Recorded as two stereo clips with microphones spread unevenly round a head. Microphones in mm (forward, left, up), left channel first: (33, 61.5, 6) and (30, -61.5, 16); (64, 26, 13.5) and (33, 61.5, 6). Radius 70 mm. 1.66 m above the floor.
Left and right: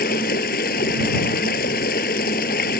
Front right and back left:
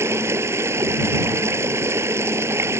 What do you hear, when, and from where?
0.0 s running water: 115° left